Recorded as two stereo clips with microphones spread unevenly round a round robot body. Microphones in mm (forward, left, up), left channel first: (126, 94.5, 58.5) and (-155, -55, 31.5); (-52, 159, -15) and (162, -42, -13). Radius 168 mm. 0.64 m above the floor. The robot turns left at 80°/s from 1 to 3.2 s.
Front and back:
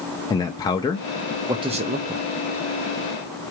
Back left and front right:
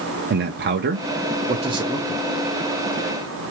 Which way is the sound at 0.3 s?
50° right.